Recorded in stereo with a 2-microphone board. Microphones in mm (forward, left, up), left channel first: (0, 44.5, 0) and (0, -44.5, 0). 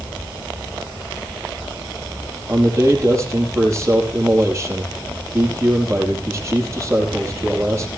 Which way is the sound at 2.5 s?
30° right (ahead or behind).